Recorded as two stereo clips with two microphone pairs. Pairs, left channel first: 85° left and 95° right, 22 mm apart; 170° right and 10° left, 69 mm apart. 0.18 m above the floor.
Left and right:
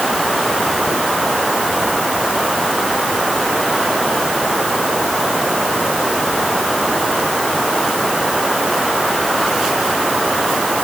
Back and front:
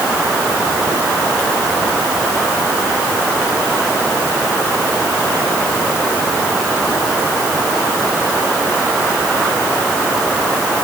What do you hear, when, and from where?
Only background noise.